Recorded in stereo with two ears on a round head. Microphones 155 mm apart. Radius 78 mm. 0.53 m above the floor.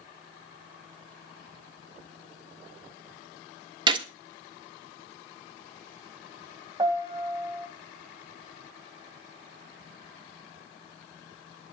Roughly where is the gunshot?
Right.